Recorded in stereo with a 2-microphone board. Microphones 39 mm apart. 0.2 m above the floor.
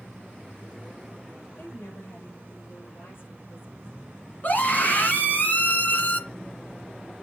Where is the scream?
50° left (ahead or behind), 2.5 m.